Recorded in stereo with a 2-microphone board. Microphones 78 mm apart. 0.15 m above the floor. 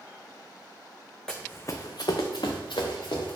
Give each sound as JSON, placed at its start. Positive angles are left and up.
{"t": 1.3, "sound": "running footsteps", "side_deg": 10, "distance_m": 0.6}